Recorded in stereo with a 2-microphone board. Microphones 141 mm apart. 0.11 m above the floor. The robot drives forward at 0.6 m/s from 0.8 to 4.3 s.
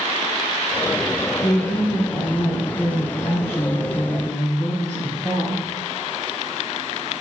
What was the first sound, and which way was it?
A woman speaking, 60° left (ahead or behind).